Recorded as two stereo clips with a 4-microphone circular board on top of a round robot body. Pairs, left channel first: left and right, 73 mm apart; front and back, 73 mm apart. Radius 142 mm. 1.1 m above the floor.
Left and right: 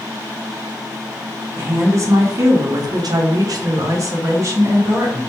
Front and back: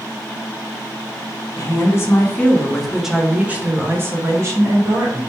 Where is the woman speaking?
35° right, 1.1 m; by 5.2 s 140° right, 1.8 m.